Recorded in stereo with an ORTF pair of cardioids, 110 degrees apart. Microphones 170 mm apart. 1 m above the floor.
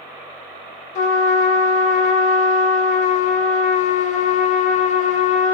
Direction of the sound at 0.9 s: 50° left.